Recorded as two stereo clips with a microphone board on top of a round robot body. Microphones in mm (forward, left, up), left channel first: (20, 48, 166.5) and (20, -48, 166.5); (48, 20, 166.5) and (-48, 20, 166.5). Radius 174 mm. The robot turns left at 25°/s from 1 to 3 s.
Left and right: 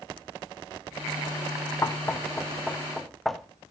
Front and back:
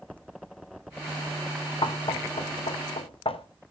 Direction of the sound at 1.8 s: 30° left.